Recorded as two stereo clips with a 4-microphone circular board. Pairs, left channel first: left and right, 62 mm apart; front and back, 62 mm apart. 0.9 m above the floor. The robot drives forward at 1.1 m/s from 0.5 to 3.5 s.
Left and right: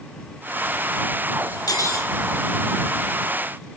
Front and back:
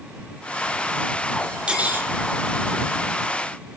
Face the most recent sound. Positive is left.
turn(degrees=155)